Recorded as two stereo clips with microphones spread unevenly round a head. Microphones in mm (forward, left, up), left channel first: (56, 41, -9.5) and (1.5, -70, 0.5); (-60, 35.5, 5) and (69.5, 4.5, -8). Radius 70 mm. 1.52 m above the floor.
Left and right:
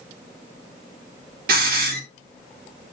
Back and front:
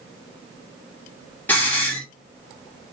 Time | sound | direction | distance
1.5 | a hiss | 115° right | 1.9 m